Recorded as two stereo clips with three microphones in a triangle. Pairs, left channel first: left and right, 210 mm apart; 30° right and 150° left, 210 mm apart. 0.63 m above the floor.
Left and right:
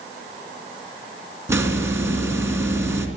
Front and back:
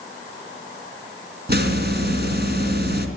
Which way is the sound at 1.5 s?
170° right.